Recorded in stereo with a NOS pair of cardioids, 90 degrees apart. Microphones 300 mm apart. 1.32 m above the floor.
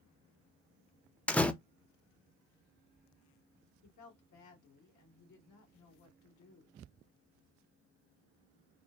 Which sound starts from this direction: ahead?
A door slam, at 1.3 s.